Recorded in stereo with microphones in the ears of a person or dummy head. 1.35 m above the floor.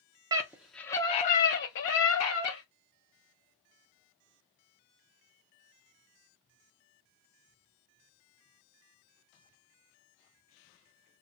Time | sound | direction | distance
0.3 | a scream | 15° right (ahead or behind) | 0.6 m